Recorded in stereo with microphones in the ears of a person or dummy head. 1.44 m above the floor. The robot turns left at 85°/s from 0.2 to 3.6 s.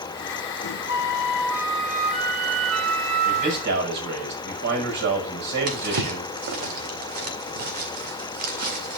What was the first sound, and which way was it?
A flute, 80° left.